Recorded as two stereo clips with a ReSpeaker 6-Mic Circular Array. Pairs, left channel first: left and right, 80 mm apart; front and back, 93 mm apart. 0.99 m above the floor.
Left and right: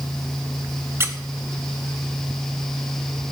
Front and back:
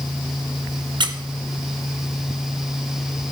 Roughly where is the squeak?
Behind right.